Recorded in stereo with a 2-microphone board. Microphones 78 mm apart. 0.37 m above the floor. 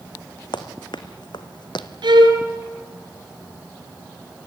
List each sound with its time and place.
0.5 s running footsteps: 70° left (ahead or behind), 1.9 m; by 1.9 s 75° left (ahead or behind), 1.3 m
2.0 s a violin: 75° right (ahead or behind), 4.5 m